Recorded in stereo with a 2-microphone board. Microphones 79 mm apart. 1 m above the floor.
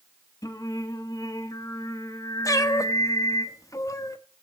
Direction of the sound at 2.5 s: 45° left (ahead or behind).